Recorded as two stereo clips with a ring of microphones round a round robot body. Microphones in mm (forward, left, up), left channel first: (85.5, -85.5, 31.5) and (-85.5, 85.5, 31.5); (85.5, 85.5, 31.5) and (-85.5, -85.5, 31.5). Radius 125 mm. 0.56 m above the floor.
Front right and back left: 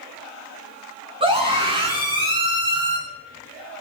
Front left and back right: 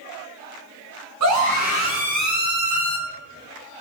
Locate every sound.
1.2 s a scream: 155° right, 7 m